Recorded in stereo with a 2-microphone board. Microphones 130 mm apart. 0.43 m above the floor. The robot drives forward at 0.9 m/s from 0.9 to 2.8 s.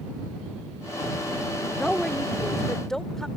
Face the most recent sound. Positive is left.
turn(degrees=5)  # may be behind; listen again after turning